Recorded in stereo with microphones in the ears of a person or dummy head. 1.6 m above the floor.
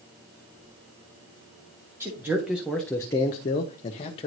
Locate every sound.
2.0 s a man speaking: 10° right (ahead or behind), 1.1 m; by 4.3 s 30° left (ahead or behind), 0.9 m